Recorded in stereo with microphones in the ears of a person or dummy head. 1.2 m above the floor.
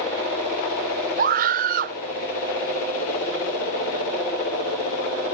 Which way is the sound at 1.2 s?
45° right (ahead or behind).